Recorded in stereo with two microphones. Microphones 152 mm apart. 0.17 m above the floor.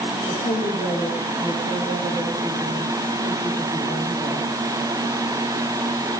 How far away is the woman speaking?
About 6.5 m.